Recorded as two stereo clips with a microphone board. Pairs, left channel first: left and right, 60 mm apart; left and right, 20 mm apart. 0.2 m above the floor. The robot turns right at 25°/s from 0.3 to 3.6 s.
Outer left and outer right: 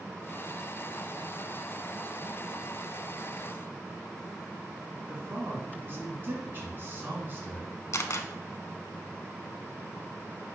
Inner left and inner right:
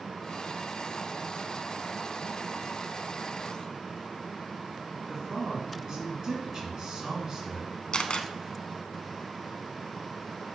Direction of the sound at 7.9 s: 55° left (ahead or behind).